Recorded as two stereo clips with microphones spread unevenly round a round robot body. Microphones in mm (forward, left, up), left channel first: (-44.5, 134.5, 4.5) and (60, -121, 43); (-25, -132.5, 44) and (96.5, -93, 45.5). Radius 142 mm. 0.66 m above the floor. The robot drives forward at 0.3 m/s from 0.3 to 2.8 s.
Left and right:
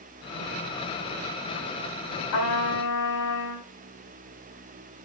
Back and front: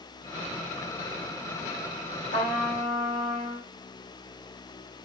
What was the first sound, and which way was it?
A trumpet, 130° left.